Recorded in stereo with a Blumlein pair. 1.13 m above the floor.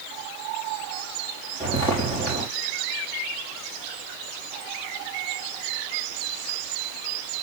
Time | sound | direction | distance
1.6 | footsteps | 10° left | 5 m